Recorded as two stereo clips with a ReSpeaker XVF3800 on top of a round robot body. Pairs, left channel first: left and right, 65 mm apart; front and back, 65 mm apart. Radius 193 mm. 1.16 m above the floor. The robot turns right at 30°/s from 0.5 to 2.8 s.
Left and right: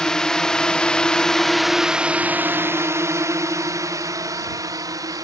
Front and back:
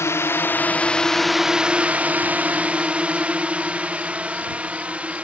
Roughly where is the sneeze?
No sneeze in this recording.